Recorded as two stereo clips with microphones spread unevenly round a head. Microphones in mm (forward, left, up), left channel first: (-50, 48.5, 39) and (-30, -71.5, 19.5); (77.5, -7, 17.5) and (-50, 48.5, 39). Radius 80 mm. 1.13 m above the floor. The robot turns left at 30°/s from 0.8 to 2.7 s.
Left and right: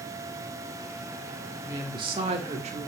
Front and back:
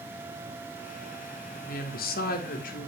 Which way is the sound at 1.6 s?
15° right.